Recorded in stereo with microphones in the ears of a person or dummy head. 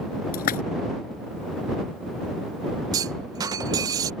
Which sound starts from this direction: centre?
A clunk, at 2.9 s.